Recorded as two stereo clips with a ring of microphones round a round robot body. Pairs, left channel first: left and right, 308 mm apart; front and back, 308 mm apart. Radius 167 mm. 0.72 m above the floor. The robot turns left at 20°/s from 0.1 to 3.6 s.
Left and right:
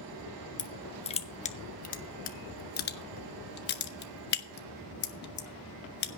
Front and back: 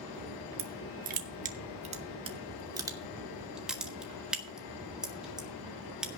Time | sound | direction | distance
0.6 | crushing | 155° left | 1.2 m